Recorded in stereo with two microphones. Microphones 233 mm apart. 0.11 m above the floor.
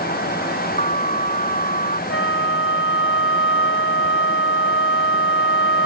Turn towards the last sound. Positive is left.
turn(degrees=55)  # may be behind; listen again after turning